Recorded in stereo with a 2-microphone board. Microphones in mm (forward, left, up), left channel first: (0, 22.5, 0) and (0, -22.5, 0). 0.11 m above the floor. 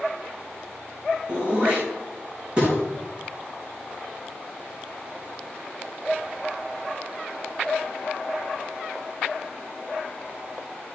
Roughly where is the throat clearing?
Right.